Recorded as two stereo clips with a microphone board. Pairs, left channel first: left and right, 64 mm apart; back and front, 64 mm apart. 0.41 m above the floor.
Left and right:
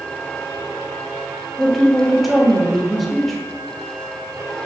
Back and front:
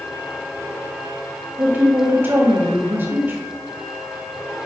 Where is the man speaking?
Straight ahead, 0.9 m.